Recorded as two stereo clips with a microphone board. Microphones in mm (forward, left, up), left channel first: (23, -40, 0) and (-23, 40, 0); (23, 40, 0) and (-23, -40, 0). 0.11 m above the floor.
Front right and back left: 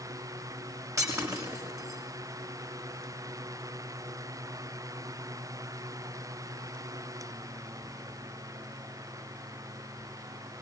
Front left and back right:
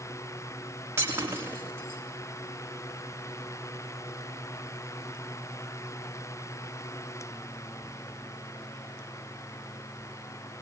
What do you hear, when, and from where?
1.0 s breaking glass: 175° left, 7.5 m